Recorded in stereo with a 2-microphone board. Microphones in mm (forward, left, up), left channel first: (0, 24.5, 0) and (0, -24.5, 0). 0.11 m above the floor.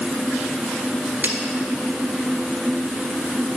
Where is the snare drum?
40° right (ahead or behind), 1.7 m.